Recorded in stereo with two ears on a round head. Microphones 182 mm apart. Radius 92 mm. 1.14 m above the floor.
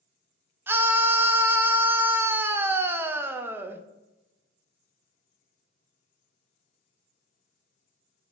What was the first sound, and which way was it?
A scream, 10° right (ahead or behind).